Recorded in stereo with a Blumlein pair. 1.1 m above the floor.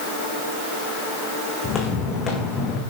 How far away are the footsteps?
About 4 m.